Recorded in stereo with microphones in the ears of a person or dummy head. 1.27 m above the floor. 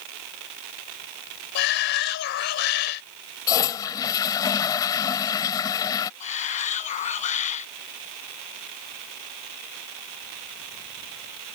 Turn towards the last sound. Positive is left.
turn(degrees=45)  # may be behind; listen again after turning